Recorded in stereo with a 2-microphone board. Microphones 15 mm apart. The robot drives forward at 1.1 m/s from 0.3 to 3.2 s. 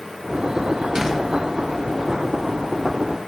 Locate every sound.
0.9 s a door slam: 30° right (ahead or behind), 4 m; by 1.2 s 25° right (ahead or behind), 4 m